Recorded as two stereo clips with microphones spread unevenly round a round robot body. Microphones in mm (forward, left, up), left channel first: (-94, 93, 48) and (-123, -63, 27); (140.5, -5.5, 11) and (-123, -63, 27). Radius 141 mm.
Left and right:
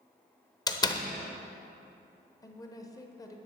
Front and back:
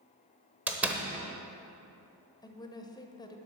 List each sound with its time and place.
0.7 s a door slam: 110° left, 0.9 m
2.4 s a woman speaking: 35° left, 0.9 m